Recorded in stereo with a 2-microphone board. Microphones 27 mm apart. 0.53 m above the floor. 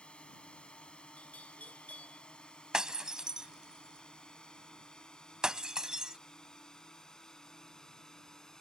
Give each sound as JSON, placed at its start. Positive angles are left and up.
{"t": 0.0, "sound": "a drone", "side_deg": 40}
{"t": 1.2, "sound": "a bell", "side_deg": 65}
{"t": 2.7, "sound": "breaking glass", "side_deg": -30}